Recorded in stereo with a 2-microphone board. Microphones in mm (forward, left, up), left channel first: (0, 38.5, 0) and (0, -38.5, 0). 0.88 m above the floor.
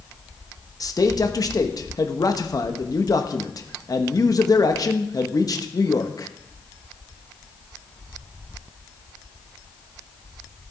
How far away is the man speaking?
About 1.0 m.